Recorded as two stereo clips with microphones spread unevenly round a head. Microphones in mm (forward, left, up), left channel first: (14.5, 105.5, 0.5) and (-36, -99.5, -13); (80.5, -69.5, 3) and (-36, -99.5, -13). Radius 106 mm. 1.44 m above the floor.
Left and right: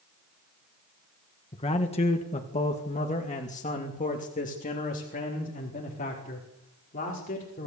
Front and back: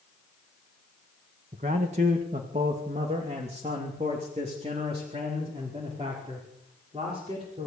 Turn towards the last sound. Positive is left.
turn(degrees=130)